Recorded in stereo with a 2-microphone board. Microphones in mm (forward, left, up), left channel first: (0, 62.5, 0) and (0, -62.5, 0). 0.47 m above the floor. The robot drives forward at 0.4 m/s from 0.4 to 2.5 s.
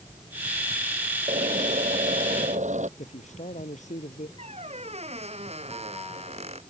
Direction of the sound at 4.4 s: 60° right (ahead or behind).